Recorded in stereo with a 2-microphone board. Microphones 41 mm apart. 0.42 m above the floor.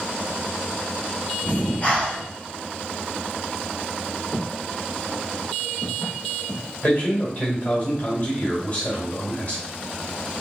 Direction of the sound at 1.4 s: 50° left (ahead or behind).